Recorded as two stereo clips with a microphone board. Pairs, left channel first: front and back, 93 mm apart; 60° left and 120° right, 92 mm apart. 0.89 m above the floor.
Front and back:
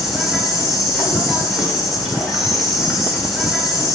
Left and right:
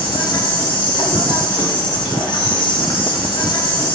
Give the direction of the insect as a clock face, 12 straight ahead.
9 o'clock.